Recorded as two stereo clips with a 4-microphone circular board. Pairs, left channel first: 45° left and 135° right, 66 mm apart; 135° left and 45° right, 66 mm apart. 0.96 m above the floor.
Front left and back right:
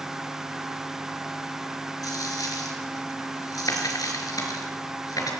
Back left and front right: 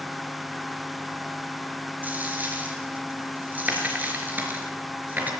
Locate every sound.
2.0 s a dropped coin: 20° left, 4 m